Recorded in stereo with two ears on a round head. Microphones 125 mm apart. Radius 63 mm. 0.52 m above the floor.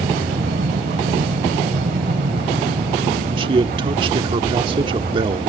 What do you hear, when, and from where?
0.0 s an aircraft: 65° right (ahead or behind); by 5.5 s 50° right (ahead or behind)
3.4 s a man speaking: 35° right (ahead or behind)